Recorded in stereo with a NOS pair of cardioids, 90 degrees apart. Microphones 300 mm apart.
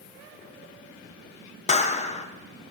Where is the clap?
25° left, 0.8 m.